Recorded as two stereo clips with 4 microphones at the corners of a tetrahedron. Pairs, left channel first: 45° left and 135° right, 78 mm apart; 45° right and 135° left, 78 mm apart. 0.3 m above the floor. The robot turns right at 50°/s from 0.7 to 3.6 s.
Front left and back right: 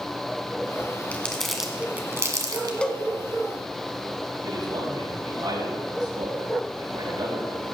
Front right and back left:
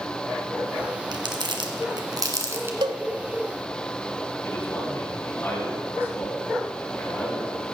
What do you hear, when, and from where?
1.1 s crumpling: 115° left, 1.9 m; by 2.7 s 165° right, 1.9 m
2.8 s a cowbell: 120° left, 0.8 m; by 3.0 s 130° left, 0.8 m
4.4 s a man speaking: 105° right, 6 m